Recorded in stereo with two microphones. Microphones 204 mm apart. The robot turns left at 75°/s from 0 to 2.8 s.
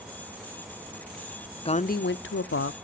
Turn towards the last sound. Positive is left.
turn(degrees=65)